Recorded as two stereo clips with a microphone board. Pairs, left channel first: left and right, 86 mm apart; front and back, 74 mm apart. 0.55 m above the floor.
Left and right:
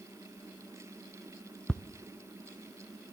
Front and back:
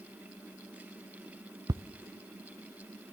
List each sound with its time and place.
1.7 s ticking: 170° left, 0.6 m